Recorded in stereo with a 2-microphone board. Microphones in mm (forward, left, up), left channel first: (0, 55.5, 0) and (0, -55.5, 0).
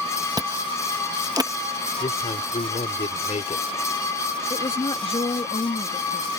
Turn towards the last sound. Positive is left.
turn(degrees=55)  # may be behind; listen again after turning